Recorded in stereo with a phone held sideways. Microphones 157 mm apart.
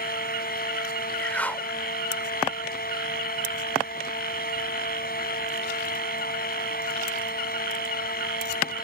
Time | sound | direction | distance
0.0 | a fan | 85° left | ?
1.2 | a whoosh | 10° left (ahead or behind) | ?